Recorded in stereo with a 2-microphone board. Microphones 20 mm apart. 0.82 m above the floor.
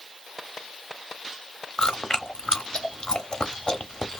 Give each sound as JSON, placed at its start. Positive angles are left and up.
{"t": 1.8, "sound": "chewing", "side_deg": 40, "distance_m": 0.7}